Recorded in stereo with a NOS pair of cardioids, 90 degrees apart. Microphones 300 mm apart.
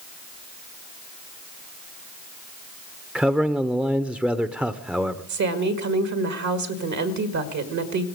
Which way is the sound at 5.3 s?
65° right.